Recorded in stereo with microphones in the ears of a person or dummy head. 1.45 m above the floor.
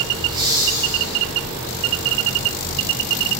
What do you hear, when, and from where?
0.2 s laughter: 30° right (ahead or behind), 1.4 m; by 1.2 s centre (ahead or behind), 1.5 m